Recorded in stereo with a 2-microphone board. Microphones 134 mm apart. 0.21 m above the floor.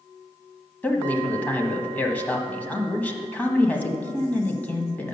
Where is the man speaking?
10° left (ahead or behind), 1.1 m.